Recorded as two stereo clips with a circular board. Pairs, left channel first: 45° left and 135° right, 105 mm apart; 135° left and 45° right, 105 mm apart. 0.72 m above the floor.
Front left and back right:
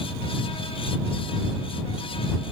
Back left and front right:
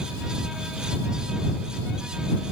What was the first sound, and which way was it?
Only background noise.